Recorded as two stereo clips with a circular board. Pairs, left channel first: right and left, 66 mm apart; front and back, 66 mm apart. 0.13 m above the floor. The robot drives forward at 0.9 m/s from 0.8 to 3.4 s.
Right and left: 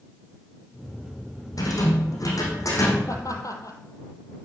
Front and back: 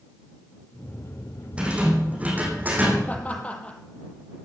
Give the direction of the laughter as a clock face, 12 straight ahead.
2 o'clock.